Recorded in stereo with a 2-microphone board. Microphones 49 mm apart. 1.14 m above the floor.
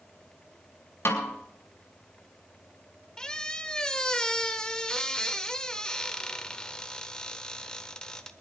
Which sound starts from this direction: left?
A snare drum, at 1.1 s.